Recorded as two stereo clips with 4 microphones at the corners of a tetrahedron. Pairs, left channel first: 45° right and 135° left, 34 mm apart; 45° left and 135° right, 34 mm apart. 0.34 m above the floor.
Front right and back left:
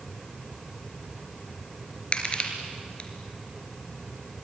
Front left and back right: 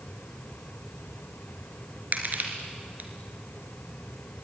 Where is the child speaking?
I don't hear a child speaking.